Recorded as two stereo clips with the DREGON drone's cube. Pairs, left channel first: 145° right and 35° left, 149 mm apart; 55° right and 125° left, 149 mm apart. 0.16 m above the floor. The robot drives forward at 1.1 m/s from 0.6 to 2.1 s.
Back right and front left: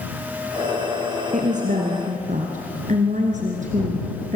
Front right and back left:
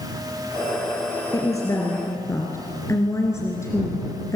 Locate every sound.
1.3 s a woman speaking: 10° left, 3.5 m; by 4.4 s 15° left, 3 m